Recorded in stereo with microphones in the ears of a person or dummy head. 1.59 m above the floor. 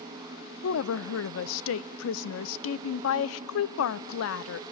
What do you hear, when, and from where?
0.6 s a woman speaking: 75° left (ahead or behind), 0.6 m